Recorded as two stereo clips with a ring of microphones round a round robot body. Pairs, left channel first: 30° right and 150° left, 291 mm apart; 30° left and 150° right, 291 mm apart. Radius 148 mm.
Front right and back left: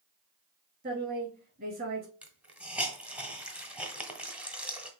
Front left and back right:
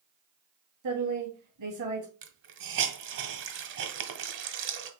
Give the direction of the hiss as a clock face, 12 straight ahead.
4 o'clock.